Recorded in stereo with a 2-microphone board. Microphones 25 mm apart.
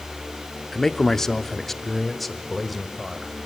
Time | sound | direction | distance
0.7 | a man speaking | 20° left (ahead or behind) | 1.0 m